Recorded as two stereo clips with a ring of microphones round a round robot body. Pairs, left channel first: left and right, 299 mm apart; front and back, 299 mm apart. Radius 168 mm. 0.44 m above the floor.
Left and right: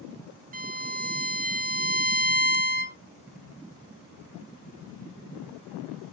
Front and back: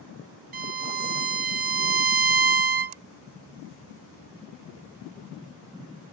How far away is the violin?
About 0.8 m.